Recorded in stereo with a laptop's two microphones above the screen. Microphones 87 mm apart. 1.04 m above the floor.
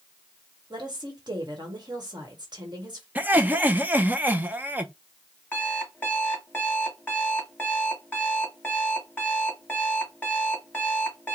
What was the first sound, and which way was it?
A woman speaking, 55° right (ahead or behind).